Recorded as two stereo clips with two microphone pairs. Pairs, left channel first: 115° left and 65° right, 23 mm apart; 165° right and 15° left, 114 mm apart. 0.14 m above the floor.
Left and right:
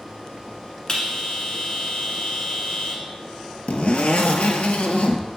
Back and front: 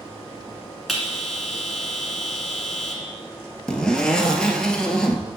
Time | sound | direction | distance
0.9 | a bell | 100° left | 1.4 m
3.7 | a zipper | 105° left | 0.6 m